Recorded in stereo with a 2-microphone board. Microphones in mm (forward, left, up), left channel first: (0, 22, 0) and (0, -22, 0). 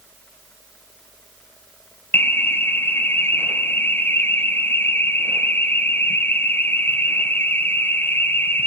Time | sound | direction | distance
2.1 | an alarm | 55° left (ahead or behind) | 1.6 m